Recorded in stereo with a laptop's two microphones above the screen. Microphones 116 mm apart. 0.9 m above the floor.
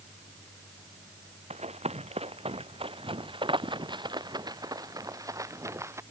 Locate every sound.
1.5 s running footsteps: 65° right (ahead or behind); by 6.0 s 20° right (ahead or behind)